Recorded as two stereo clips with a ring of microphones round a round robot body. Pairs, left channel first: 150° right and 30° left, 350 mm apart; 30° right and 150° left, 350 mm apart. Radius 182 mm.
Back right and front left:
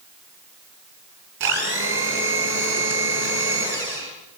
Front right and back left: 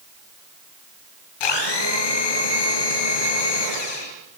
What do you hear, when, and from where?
1.4 s a blender: 30° right, 5 m